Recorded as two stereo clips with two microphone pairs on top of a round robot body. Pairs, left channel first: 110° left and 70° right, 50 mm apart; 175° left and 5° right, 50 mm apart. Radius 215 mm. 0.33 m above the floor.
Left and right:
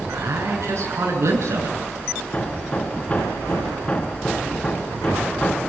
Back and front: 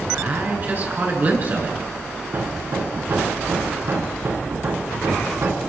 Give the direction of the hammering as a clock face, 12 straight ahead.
11 o'clock.